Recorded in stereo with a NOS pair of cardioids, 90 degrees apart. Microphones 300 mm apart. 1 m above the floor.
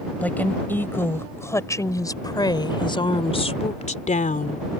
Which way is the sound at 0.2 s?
5° left.